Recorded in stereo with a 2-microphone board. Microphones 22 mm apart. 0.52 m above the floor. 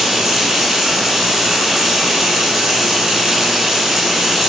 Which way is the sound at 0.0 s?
20° right (ahead or behind).